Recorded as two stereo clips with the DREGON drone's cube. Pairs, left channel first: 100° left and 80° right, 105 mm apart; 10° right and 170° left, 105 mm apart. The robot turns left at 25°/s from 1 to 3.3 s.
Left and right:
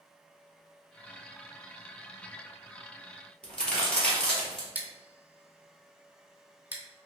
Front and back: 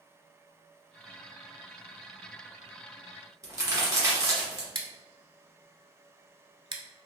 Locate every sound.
3.4 s a crack: 170° left, 1.5 m
4.8 s scissors: 150° right, 0.6 m